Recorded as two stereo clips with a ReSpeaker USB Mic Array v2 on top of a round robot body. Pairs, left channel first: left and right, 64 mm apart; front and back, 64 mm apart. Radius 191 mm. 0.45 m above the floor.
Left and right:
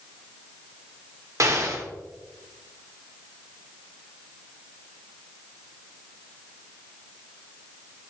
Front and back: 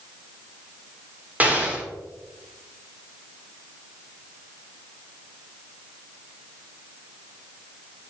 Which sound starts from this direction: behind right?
An explosion, at 1.4 s.